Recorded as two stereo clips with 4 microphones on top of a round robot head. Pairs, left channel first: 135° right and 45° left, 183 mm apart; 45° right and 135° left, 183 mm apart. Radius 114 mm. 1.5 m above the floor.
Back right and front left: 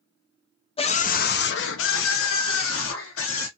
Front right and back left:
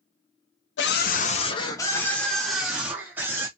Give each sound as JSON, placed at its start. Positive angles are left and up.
{"t": 0.8, "sound": "a scream", "azimuth_deg": -75, "distance_m": 0.6}